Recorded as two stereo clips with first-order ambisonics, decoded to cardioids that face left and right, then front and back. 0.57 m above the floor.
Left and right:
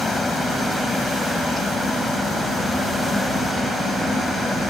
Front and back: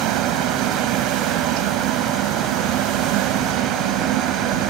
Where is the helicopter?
165° left.